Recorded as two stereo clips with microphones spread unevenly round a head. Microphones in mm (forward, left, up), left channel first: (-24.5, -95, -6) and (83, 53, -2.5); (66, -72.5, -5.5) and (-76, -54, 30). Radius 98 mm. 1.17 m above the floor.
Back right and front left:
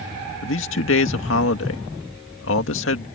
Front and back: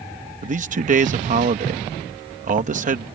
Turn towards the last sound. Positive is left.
turn(degrees=-150)